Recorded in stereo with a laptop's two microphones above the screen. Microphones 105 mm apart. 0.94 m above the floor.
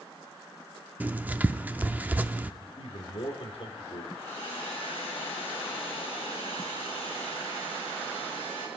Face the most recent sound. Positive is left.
turn(degrees=70)  # may be behind; listen again after turning